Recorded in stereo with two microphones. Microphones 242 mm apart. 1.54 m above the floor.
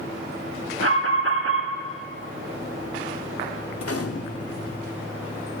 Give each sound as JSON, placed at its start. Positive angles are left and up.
{"t": 0.8, "sound": "an alarm", "side_deg": -60, "distance_m": 1.6}
{"t": 3.8, "sound": "a gunshot", "side_deg": 75, "distance_m": 1.0}